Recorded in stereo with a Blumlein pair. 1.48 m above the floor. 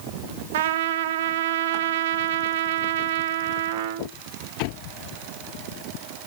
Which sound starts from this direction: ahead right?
A trumpet, at 0.5 s.